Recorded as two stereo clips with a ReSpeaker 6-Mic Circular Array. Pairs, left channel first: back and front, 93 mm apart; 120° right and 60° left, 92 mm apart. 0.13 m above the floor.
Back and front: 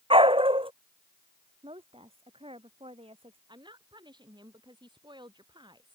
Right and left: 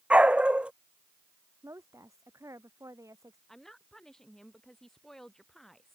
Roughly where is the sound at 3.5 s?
Ahead right.